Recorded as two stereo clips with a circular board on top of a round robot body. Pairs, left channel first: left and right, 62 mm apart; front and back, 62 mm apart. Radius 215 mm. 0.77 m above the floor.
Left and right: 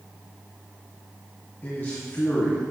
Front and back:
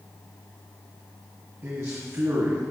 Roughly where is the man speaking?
Behind left.